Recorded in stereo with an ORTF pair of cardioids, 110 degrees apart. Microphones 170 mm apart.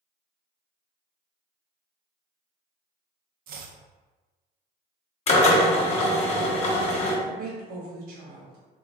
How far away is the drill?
About 1.1 m.